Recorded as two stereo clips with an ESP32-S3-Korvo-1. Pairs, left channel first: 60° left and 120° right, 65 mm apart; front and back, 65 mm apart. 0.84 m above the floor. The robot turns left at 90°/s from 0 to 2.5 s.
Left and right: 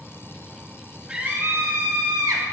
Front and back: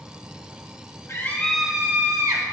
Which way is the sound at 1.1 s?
40° right.